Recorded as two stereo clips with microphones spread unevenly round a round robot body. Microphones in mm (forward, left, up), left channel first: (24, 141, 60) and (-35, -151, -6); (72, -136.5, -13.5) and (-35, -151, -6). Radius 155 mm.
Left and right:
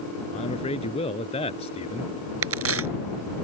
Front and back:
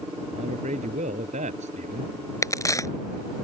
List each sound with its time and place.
0.3 s a man speaking: 150° left
2.4 s a crack: 55° right